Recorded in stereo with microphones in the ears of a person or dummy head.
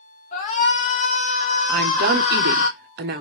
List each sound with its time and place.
0.3 s a shout: 50° left (ahead or behind), 1.2 m
1.7 s a woman speaking: 45° right (ahead or behind), 0.5 m